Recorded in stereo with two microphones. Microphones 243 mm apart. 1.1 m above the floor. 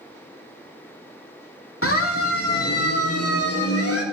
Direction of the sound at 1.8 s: 65° left (ahead or behind).